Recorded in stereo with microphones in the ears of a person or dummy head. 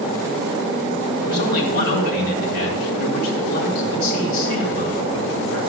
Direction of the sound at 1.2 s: 55° left (ahead or behind).